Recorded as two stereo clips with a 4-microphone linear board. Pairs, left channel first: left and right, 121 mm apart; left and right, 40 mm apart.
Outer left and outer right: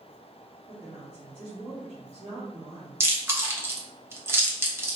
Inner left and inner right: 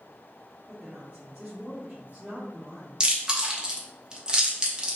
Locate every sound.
0.7 s a woman speaking: 35° right (ahead or behind), 2 m
3.0 s chewing: 20° right (ahead or behind), 1.0 m